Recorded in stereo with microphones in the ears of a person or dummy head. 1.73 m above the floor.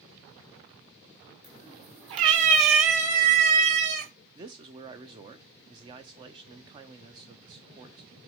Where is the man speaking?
20° right (ahead or behind), 0.6 m.